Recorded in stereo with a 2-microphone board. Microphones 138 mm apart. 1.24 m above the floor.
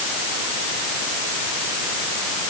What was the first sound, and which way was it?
Only background noise.